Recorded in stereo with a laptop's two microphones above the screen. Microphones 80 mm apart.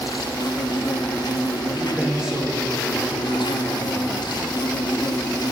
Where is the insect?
65° left (ahead or behind), 0.7 m.